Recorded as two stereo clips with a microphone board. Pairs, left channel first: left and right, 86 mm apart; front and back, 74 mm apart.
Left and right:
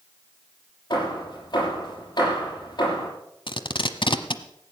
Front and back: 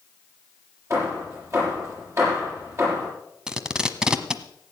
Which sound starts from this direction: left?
Tape being pulled, at 3.5 s.